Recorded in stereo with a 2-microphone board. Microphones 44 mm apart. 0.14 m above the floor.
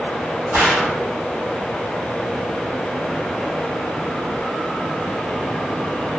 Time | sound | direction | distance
0.5 | a gunshot | 70° right (ahead or behind) | 1.1 m